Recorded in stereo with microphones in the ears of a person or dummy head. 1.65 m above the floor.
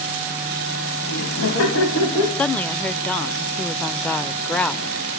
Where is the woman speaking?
10° left (ahead or behind), 0.6 m.